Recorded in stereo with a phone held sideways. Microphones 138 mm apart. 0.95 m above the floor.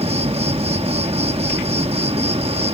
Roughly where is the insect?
Right.